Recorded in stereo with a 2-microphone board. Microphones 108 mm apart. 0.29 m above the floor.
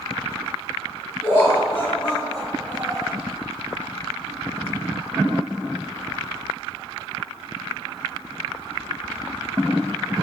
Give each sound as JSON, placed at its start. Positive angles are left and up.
{"t": 1.2, "sound": "laughter", "side_deg": 25, "distance_m": 1.2}